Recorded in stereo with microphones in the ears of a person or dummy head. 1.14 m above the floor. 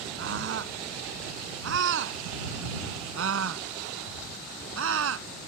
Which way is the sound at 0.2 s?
70° right (ahead or behind).